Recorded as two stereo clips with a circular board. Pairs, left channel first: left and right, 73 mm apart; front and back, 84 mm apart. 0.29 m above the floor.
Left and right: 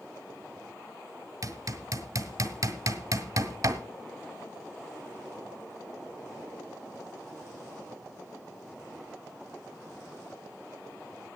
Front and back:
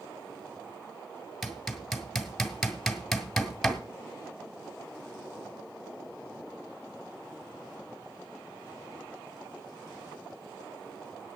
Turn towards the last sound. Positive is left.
turn(degrees=-90)